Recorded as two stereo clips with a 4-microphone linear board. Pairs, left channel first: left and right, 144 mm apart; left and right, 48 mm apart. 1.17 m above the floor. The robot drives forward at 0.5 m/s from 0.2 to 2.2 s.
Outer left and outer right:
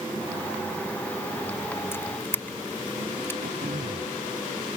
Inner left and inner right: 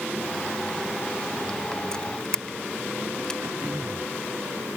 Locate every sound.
1.9 s a camera shutter: 15° left (ahead or behind)
3.4 s throat clearing: 85° right